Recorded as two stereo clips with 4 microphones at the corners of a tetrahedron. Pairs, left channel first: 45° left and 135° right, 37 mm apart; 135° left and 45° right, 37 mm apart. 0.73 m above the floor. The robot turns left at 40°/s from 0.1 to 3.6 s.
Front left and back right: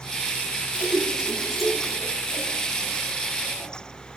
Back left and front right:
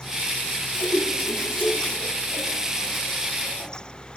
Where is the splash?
175° left, 7 m; by 3.7 s 60° left, 7 m.